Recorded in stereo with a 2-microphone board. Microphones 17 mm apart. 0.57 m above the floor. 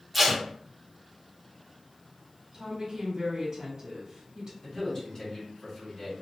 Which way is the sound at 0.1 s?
5° right (ahead or behind).